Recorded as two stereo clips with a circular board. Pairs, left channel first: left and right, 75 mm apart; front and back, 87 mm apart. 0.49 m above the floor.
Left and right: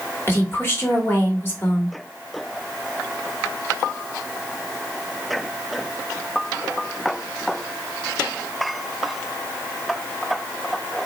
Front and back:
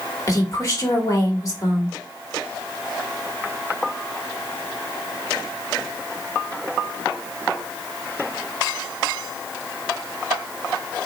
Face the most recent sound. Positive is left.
turn(degrees=40)